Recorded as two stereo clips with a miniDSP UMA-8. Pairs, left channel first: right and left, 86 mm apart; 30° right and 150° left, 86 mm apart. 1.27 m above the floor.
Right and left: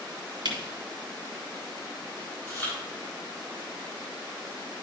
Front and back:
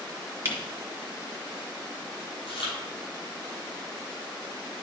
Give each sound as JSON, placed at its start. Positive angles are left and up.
{"t": 0.5, "sound": "a camera shutter", "azimuth_deg": 90, "distance_m": 2.0}
{"t": 2.5, "sound": "chewing", "azimuth_deg": -20, "distance_m": 4.0}